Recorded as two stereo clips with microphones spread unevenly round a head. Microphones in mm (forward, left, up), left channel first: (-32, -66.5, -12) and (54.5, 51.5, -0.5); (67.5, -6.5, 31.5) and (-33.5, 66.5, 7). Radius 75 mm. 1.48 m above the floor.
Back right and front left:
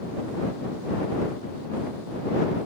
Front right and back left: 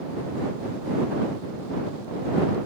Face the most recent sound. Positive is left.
No sound to turn to.